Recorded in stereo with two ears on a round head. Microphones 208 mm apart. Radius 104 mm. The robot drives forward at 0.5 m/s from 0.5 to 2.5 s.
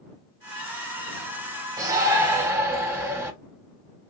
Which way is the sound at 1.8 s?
15° right (ahead or behind).